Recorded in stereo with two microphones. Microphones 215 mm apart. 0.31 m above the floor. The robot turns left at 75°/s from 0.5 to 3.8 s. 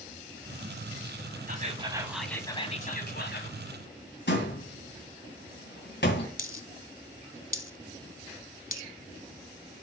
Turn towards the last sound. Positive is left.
turn(degrees=45)  # may be behind; listen again after turning